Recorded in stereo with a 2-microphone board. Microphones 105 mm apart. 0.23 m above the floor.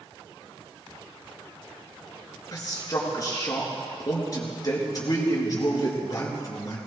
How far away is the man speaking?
About 4 m.